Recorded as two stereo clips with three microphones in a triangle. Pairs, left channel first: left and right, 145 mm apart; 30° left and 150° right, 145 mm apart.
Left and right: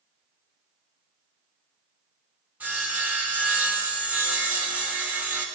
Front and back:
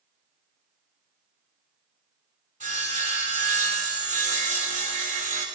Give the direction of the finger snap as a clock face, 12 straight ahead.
I don't hear a finger snap.